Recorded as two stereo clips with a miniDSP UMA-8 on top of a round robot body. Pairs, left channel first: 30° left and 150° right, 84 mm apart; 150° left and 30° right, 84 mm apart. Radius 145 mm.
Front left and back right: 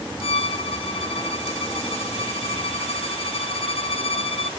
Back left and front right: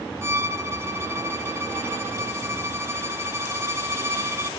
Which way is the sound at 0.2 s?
30° left.